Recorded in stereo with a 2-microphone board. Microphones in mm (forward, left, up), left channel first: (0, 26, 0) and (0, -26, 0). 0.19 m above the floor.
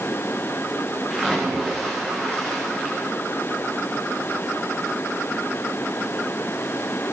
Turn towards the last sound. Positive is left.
turn(degrees=-10)  # may be behind; listen again after turning